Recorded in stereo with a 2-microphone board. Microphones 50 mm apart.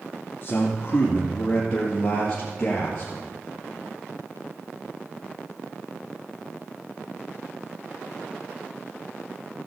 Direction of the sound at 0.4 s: 30° left (ahead or behind).